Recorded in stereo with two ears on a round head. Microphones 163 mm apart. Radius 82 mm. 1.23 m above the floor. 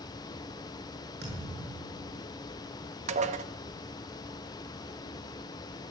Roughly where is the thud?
Right.